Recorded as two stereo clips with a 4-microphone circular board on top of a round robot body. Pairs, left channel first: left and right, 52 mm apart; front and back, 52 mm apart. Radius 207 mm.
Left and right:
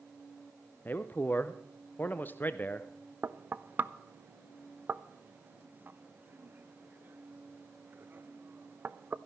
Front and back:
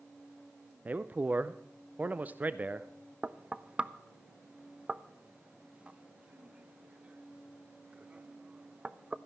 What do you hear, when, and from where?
0.8 s a man speaking: 130° left, 0.7 m
3.2 s knocking: 120° right, 0.7 m